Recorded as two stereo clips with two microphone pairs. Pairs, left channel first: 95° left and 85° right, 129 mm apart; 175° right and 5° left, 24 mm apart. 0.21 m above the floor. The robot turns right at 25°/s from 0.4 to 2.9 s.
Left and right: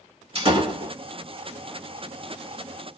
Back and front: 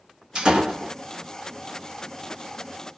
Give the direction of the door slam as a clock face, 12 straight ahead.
2 o'clock.